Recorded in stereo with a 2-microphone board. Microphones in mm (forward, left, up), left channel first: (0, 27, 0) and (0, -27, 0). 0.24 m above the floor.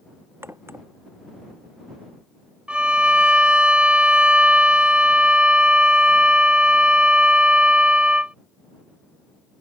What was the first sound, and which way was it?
A crack, 45° right (ahead or behind).